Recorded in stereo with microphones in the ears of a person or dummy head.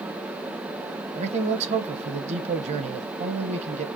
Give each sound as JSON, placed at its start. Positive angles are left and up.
{"t": 1.1, "sound": "a man speaking", "side_deg": -35, "distance_m": 0.8}